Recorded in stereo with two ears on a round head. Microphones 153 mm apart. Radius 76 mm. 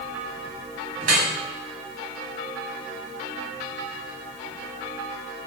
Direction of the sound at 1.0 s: 45° right (ahead or behind).